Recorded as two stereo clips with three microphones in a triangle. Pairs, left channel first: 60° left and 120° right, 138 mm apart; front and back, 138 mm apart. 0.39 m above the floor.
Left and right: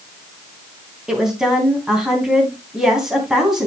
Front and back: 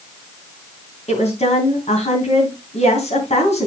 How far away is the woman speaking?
About 3.5 m.